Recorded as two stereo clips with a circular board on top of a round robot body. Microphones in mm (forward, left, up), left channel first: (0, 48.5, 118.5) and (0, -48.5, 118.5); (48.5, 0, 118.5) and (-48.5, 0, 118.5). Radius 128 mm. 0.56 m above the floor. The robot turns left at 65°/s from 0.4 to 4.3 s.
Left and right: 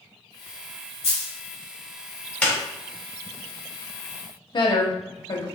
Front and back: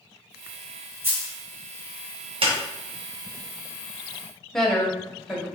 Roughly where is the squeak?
Behind.